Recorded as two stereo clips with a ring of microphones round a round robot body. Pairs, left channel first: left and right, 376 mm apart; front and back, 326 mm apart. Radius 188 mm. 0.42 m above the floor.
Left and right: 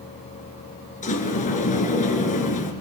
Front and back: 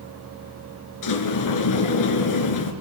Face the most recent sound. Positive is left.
turn(degrees=20)